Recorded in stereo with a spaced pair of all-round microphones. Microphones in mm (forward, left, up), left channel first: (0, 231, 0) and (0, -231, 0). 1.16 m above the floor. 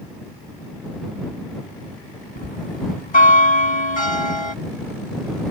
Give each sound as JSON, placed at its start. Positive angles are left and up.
{"t": 2.4, "sound": "a bell", "side_deg": 75}